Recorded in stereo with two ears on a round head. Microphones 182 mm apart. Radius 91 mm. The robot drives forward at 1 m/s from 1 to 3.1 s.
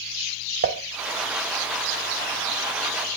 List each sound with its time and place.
0.6 s dishes clattering: 45° right (ahead or behind), 0.6 m